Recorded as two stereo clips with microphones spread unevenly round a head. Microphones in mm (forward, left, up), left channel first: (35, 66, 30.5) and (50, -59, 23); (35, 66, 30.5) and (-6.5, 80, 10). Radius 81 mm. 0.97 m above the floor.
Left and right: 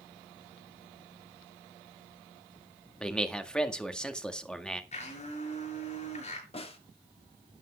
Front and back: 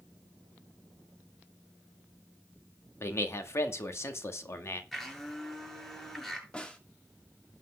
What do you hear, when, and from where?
3.0 s a man speaking: 15° left, 1.9 m
4.9 s a blender: 65° left, 7 m
6.5 s a snare drum: 55° left, 2 m